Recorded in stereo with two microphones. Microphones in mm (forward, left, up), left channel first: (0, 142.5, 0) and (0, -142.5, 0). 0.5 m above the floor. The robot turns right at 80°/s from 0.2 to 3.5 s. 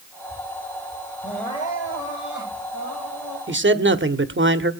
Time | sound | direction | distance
1.2 | crying | 10° right | 9 m
3.5 | a man speaking | 40° right (ahead or behind) | 1.1 m